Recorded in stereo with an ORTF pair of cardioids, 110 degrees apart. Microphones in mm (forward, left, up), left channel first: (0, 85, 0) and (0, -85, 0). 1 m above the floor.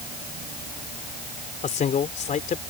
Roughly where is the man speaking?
Ahead left.